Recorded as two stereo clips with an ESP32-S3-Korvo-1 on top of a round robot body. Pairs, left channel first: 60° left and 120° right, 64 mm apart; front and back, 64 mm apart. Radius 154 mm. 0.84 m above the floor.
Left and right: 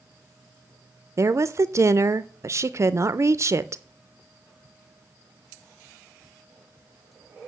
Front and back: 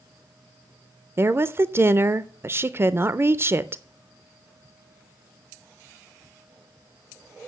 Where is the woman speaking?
140° right, 0.6 m.